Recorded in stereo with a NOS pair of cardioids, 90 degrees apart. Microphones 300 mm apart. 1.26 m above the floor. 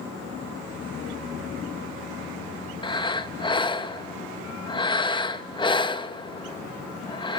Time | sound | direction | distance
2.8 | breathing | 15° left | 1.3 m